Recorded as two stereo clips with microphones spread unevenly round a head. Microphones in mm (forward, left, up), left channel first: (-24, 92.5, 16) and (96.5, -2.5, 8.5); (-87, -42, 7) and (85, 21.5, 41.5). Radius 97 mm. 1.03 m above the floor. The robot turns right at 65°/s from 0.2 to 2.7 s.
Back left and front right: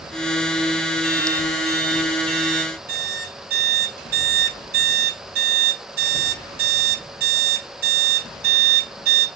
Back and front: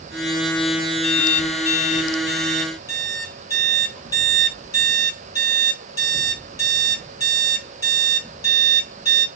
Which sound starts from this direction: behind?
An alarm clock, at 1.0 s.